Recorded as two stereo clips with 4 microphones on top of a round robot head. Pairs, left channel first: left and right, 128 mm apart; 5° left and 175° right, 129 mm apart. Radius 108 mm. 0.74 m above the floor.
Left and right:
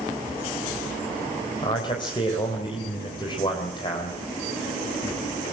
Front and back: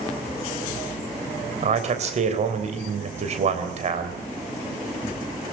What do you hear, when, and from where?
1.6 s a man speaking: 150° left, 3.5 m